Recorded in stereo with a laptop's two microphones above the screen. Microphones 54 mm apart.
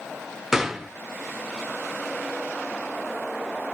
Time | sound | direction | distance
0.5 | a gunshot | 5° right (ahead or behind) | 1.6 m